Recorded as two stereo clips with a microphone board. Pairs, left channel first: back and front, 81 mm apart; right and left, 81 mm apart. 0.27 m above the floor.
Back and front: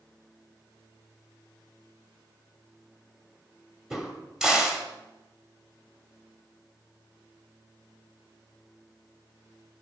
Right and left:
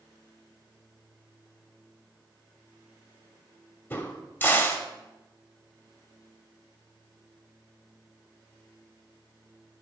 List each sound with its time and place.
3.9 s a crack: 75° right, 1.3 m